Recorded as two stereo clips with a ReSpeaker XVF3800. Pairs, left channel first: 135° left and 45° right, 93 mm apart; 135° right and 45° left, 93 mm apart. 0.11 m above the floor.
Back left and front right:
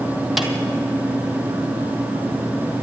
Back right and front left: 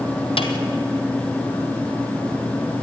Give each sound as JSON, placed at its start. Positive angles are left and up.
{"t": 0.4, "sound": "a snare drum", "azimuth_deg": -135, "distance_m": 1.8}